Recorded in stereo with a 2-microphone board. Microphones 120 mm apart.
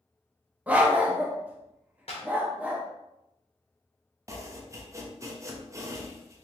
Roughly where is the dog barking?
Centre.